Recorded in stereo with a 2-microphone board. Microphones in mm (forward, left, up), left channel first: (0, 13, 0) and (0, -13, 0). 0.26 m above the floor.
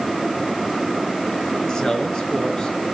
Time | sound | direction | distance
1.7 | a man speaking | 30° left (ahead or behind) | 4.5 m